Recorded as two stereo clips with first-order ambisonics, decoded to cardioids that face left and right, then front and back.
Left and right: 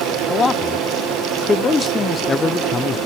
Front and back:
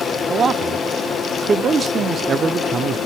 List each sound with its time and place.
0.3 s a man speaking: 155° left, 0.7 m